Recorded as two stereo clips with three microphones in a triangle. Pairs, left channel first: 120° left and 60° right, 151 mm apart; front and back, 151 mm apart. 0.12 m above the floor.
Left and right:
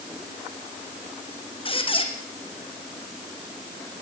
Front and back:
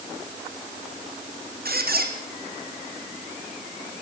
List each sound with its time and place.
1.6 s a squeak: 175° left, 2 m